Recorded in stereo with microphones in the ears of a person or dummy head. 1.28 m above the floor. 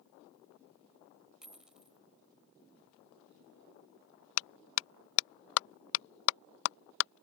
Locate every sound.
1.4 s a dropped coin: centre (ahead or behind)
4.4 s a clap: 75° left (ahead or behind)